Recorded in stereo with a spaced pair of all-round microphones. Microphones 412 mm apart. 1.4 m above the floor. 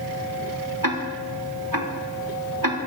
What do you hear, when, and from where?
0.8 s ticking: 50° right (ahead or behind), 3 m